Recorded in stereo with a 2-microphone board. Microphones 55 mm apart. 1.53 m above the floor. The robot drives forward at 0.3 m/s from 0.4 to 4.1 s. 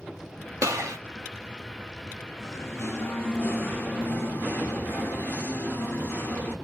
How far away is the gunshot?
About 0.9 m.